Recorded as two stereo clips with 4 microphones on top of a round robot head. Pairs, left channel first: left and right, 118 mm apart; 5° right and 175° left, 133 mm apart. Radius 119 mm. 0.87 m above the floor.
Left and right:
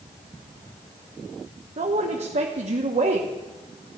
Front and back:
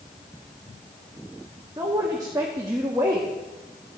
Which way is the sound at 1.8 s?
115° right.